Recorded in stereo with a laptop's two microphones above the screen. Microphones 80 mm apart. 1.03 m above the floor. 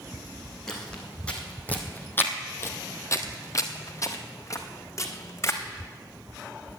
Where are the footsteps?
10° left (ahead or behind), 2 m; by 5.6 s 35° left (ahead or behind), 2.5 m.